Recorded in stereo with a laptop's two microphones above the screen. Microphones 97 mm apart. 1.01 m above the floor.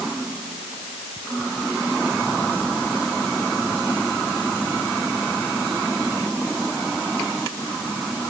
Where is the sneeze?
No sneeze in this recording.